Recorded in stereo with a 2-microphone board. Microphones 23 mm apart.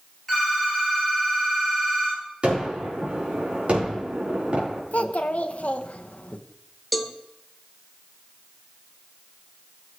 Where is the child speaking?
70° left (ahead or behind), 0.9 m.